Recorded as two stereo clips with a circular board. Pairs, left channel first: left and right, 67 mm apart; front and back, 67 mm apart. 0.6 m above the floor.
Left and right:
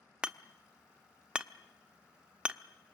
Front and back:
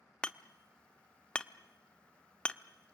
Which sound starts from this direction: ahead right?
Hammering, at 0.2 s.